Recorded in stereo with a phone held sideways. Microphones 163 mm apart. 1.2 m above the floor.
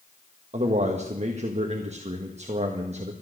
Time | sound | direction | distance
0.5 | a man speaking | 45° right (ahead or behind) | 1.4 m